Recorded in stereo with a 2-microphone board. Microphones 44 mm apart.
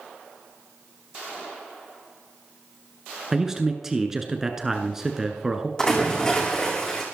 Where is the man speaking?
15° right (ahead or behind), 1.3 m.